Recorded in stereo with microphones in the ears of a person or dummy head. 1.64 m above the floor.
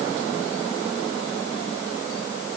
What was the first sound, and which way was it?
Only background noise.